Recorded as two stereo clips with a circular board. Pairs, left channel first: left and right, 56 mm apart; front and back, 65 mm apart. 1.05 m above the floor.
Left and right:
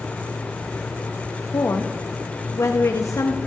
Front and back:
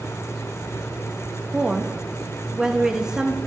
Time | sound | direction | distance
1.5 | a woman speaking | 105° left | 1.4 m